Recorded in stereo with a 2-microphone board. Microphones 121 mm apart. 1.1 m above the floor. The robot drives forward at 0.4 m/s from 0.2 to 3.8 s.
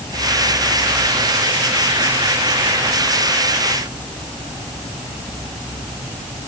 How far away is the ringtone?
I don't hear a ringtone.